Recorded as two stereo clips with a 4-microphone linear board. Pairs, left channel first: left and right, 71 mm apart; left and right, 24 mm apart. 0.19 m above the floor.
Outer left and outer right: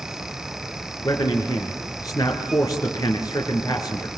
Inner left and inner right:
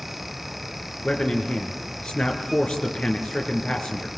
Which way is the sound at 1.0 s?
60° left (ahead or behind).